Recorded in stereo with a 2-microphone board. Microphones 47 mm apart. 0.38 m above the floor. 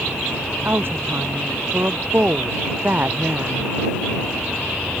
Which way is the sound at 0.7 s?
55° right (ahead or behind).